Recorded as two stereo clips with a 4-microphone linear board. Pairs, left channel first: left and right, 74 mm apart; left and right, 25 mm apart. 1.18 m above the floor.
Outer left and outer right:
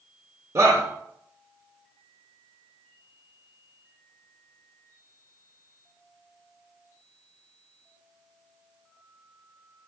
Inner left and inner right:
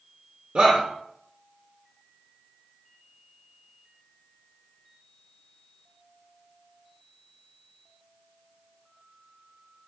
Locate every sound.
0.6 s a shout: 50° right (ahead or behind), 0.7 m